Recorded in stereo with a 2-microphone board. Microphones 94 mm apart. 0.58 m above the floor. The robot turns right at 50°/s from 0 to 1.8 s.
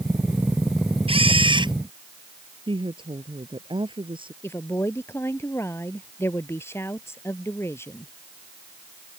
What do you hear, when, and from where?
1.1 s a camera shutter: 85° right; by 1.7 s 55° right
2.7 s a woman speaking: 65° right (ahead or behind)
4.4 s a woman speaking: 25° left (ahead or behind)